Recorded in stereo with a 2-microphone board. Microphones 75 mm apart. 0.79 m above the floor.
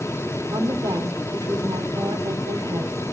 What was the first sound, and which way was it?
A woman speaking, 70° right (ahead or behind).